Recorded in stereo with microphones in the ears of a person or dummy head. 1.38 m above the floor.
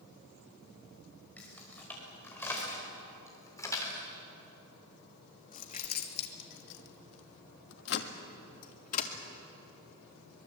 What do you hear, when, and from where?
1.4 s keys jangling: 5° left (ahead or behind), 5.5 m; by 9.1 s 40° left (ahead or behind), 2.5 m